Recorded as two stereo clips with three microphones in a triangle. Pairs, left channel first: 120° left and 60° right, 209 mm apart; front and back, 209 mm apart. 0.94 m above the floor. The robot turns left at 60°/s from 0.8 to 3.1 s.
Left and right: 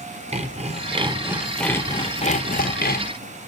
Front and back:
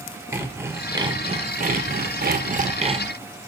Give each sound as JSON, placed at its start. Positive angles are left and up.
{"t": 0.3, "sound": "sawing", "azimuth_deg": -105, "distance_m": 0.6}